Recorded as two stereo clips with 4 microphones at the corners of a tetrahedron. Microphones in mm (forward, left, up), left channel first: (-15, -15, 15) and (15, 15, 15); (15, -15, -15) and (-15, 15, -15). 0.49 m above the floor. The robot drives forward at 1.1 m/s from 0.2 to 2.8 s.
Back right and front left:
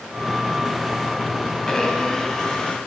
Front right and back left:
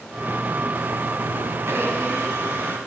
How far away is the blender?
About 3 m.